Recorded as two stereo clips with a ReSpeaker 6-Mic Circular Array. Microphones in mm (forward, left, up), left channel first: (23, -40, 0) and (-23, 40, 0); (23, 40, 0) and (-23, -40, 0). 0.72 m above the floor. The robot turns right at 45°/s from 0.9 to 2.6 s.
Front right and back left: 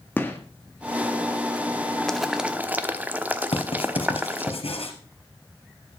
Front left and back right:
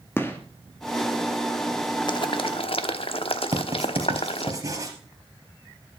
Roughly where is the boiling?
Ahead left.